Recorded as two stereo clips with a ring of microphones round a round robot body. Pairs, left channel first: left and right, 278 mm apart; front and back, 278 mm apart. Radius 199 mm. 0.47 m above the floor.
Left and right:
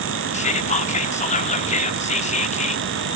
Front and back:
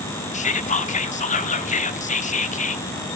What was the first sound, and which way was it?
Whispering, 45° left.